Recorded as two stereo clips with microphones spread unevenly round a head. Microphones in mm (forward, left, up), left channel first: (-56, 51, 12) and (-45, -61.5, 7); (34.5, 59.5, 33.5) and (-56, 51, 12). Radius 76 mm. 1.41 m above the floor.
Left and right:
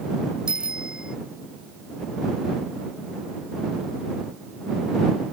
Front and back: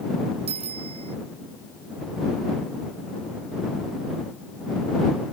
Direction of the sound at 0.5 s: 165° right.